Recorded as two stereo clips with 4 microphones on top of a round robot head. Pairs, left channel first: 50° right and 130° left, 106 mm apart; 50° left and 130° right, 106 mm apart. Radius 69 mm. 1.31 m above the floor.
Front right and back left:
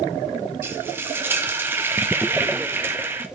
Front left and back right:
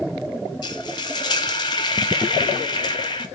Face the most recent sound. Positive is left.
turn(degrees=70)